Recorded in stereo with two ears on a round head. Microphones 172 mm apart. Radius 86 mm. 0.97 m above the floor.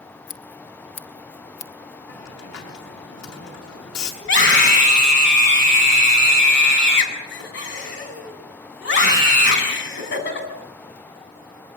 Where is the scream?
60° left (ahead or behind), 8 m.